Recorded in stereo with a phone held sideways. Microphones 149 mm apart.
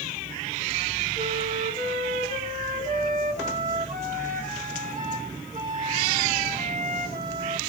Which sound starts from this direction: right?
A flute, at 1.2 s.